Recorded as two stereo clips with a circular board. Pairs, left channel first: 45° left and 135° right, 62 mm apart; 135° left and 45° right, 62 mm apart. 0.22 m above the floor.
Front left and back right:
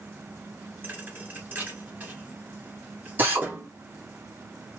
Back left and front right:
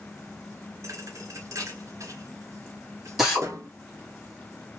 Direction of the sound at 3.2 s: 130° right.